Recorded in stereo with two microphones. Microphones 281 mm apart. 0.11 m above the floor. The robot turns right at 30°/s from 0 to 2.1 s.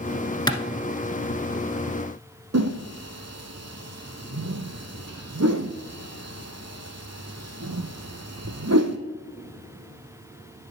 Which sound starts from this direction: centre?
A clap, at 0.5 s.